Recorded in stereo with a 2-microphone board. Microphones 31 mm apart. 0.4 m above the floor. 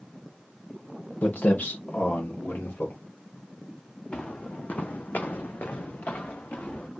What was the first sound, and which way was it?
Footsteps, 75° left (ahead or behind).